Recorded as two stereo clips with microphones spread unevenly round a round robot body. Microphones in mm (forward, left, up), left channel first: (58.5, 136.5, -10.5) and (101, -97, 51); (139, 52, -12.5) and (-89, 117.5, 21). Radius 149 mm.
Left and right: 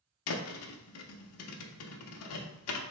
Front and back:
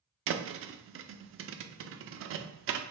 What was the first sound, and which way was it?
A thud, 120° left.